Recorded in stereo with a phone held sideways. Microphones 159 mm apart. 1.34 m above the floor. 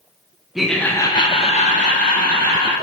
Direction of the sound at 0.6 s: Centre (ahead or behind).